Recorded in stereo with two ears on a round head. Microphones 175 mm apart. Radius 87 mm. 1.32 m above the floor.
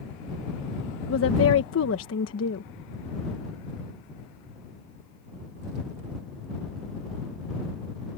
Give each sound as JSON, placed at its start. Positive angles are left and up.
{"t": 1.1, "sound": "a woman speaking", "side_deg": 75}